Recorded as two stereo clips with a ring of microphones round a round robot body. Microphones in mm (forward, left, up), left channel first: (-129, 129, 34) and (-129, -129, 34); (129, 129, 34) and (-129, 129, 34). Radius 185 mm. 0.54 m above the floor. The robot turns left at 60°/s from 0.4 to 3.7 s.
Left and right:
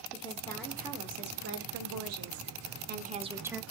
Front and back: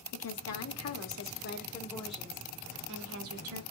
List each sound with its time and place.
0.1 s a woman speaking: 15° left, 1.4 m; by 3.6 s straight behind, 1.4 m